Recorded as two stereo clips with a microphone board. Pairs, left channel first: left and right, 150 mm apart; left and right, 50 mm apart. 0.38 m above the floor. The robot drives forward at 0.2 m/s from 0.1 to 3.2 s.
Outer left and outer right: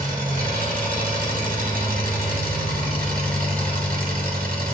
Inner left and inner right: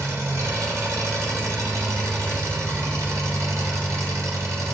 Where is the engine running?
75° right (ahead or behind), 1.7 m; by 4.7 s 85° right, 1.7 m.